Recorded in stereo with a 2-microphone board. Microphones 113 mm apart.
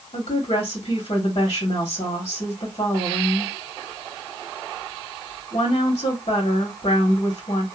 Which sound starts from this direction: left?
A woman speaking, at 0.1 s.